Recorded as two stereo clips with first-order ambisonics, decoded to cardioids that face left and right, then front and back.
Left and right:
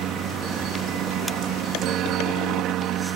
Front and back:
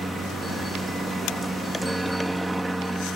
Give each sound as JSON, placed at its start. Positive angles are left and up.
{"t": 0.0, "sound": "a helicopter", "azimuth_deg": -100}